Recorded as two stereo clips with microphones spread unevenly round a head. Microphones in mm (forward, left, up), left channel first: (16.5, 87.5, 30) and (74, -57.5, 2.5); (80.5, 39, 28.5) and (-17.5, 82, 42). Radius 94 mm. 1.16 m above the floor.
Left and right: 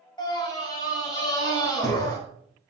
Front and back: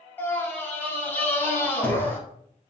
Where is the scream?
50° left, 6 m; by 2.2 s 45° left, 7.5 m.